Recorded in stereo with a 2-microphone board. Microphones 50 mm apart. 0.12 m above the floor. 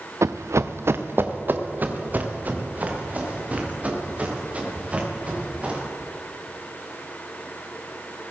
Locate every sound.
0.2 s running footsteps: 75° right (ahead or behind), 0.6 m; by 5.8 s 30° right (ahead or behind), 6 m